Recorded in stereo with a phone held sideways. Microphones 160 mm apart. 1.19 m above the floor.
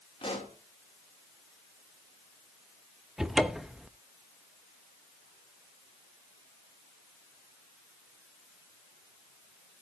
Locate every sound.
0.2 s a pop: 35° left (ahead or behind), 2.5 m
3.2 s a cupboard door: 5° right (ahead or behind), 0.6 m